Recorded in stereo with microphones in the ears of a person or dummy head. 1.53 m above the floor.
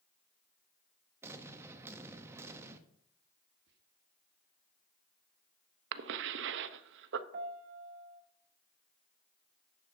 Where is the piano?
40° right (ahead or behind), 1.0 m.